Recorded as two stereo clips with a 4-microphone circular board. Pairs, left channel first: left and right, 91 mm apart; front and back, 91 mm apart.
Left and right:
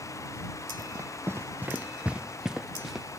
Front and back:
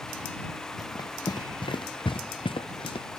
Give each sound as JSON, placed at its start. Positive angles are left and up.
{"t": 0.8, "sound": "running footsteps", "azimuth_deg": -45}